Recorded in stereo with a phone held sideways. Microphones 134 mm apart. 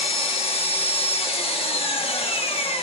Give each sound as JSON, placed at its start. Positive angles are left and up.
{"t": 0.0, "sound": "an engine running", "side_deg": 45, "distance_m": 1.2}